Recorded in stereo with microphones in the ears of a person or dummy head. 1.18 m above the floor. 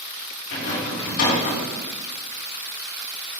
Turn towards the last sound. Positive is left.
turn(degrees=80)